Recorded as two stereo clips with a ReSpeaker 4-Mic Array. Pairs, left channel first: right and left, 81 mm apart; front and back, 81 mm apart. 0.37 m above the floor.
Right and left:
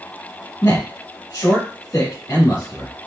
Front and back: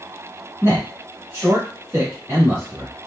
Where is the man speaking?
130° right, 2.0 m.